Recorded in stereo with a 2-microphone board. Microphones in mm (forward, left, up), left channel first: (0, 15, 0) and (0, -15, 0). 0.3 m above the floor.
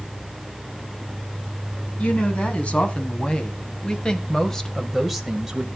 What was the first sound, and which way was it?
A woman speaking, 50° left (ahead or behind).